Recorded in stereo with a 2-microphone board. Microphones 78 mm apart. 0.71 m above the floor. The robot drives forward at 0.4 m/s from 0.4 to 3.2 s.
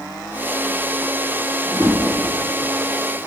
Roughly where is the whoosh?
Right.